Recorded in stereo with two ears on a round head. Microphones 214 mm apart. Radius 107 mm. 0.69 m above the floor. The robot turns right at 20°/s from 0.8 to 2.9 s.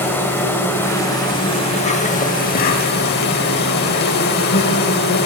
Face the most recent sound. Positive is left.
turn(degrees=55)